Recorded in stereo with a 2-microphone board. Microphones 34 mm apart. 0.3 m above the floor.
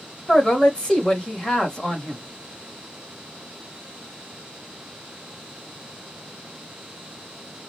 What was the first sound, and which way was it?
A man speaking, 25° left (ahead or behind).